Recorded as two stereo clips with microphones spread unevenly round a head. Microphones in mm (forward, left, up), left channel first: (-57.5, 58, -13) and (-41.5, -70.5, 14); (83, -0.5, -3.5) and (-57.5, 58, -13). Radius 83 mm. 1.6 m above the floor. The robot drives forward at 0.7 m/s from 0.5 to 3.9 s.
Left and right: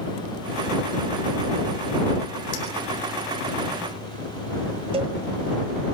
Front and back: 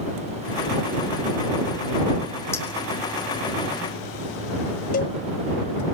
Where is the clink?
50° left, 2.5 m.